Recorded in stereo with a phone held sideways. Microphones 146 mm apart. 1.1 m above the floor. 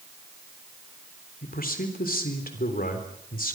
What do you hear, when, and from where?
1.4 s a man speaking: 85° left, 3.5 m